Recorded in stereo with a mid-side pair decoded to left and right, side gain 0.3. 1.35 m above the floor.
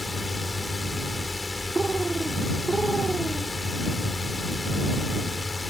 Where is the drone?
25° left.